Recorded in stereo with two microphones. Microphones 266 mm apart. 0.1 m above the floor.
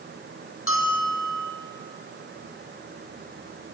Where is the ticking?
I don't hear ticking.